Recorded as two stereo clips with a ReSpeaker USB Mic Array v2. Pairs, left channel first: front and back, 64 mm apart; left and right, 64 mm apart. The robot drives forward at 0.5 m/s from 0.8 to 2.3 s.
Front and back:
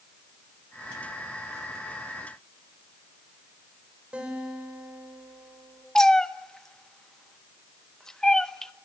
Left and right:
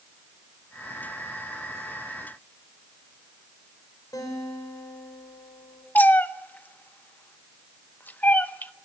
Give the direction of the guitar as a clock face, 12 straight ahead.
8 o'clock.